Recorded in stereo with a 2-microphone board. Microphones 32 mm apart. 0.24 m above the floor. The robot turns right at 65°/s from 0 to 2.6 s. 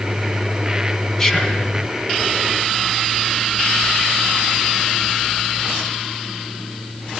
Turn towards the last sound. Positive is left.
turn(degrees=110)